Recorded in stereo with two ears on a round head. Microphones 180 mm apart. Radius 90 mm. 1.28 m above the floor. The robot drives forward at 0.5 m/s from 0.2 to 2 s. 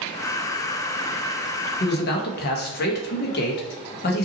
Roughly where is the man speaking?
Left.